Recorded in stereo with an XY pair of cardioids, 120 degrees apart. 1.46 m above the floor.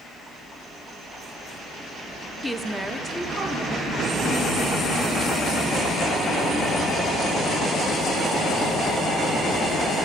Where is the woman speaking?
Straight ahead, 0.7 m; by 7.4 s 40° right, 5 m.